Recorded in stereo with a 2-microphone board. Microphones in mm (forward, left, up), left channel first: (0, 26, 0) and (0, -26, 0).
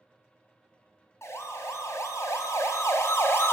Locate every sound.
1.2 s a siren: 60° left (ahead or behind), 2 m; by 3.5 s 50° left (ahead or behind), 1.6 m